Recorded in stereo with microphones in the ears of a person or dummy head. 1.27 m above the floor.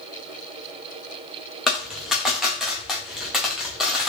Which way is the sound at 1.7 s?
5° left (ahead or behind).